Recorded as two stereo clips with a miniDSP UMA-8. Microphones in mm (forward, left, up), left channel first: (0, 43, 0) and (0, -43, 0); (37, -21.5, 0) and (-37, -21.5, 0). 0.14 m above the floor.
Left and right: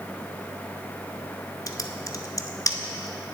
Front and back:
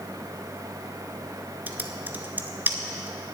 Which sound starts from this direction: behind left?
Typing on a keyboard, at 1.7 s.